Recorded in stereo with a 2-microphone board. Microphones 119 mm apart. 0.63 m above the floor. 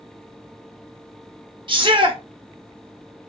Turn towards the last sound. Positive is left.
turn(degrees=-45)  # may be behind; listen again after turning